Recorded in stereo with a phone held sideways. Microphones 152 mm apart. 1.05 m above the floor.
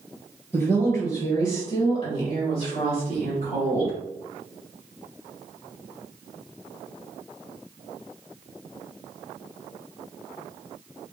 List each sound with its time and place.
0.5 s a woman speaking: 25° left (ahead or behind), 1.3 m; by 4.0 s 65° left (ahead or behind), 3 m